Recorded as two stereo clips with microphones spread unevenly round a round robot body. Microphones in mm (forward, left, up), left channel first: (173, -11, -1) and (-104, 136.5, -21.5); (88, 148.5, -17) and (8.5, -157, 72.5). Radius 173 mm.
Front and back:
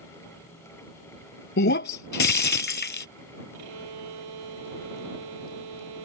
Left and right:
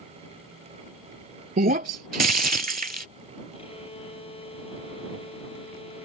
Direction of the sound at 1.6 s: 70° right.